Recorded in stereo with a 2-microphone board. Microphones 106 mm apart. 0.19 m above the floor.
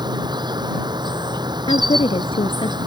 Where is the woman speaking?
65° left (ahead or behind).